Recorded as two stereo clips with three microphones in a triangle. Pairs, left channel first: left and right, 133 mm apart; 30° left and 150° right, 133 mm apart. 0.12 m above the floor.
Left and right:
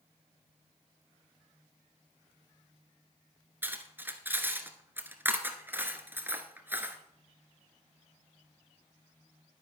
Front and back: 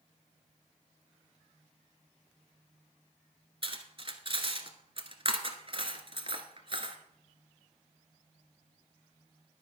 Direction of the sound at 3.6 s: 155° right.